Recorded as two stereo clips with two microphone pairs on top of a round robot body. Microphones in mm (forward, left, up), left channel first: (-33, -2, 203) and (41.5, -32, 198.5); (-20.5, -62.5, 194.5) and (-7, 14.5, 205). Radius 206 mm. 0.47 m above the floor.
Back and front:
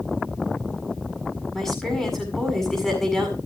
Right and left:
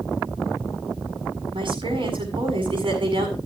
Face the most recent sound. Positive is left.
turn(degrees=75)